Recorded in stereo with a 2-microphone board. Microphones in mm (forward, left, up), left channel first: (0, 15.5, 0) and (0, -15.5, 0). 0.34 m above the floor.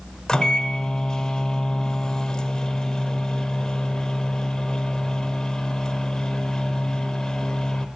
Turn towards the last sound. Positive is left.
turn(degrees=25)  # may be behind; listen again after turning